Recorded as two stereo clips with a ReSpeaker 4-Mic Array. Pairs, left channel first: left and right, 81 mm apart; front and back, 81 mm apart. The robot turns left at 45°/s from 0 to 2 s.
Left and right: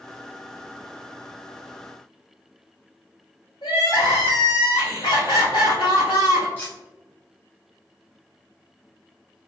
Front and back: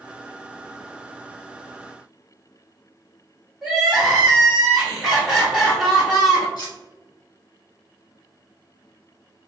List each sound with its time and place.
3.6 s crying: 95° left, 1.5 m
6.6 s cutlery clinking: 25° left, 1.7 m